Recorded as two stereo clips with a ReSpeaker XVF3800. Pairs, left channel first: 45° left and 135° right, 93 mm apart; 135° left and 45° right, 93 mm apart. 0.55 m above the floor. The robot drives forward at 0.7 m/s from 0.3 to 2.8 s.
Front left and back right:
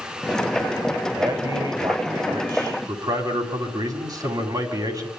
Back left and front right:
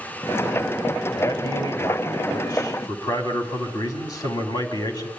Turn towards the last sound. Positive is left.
turn(degrees=180)